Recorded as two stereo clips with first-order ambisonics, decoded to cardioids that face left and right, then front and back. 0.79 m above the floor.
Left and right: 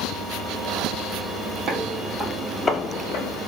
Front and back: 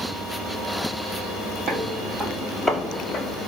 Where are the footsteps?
125° right, 1.0 m; by 3.4 s 70° left, 1.0 m.